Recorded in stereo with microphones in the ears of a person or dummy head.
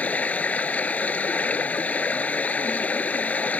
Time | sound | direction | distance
0.0 | running water | 10° left (ahead or behind) | ?